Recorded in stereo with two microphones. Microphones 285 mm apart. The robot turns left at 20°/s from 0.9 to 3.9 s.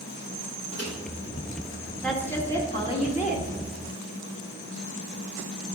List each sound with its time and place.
0.7 s a microwave: 60° left (ahead or behind), 2.5 m
2.0 s a woman speaking: centre (ahead or behind), 1.8 m; by 3.5 s 30° left (ahead or behind), 1.8 m